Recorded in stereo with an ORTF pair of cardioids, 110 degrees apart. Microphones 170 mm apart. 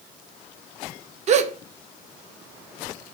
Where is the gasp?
40° right, 0.6 m.